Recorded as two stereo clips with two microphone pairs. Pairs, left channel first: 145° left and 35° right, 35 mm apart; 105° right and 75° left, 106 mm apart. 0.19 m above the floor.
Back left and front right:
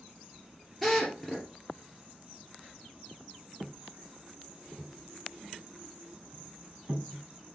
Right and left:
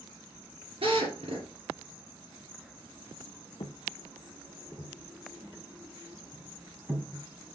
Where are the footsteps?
90° right, 1.1 m; by 7.5 s 5° left, 4 m.